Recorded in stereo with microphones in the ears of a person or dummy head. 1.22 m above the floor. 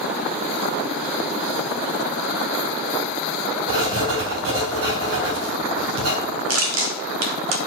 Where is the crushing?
75° right (ahead or behind), 1.9 m.